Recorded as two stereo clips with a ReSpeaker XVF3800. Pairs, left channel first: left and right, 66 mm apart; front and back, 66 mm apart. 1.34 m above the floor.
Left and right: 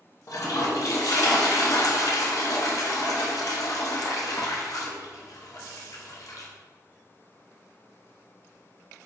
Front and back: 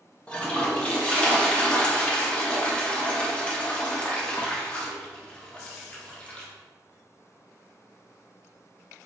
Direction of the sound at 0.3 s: 70° left.